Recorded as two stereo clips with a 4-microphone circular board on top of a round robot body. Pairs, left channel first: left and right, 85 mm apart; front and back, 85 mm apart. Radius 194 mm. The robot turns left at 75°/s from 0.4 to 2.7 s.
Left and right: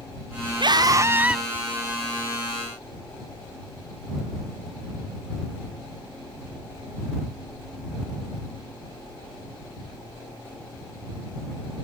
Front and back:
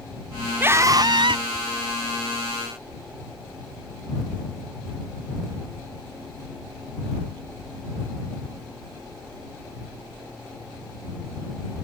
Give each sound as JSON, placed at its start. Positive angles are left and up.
{"t": 0.6, "sound": "a scream", "azimuth_deg": -110}